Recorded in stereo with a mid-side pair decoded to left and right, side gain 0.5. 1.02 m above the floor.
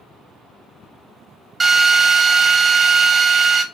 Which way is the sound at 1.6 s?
25° right.